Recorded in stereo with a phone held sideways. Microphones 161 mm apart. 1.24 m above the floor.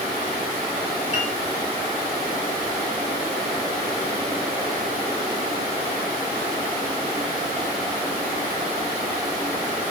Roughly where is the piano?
Right.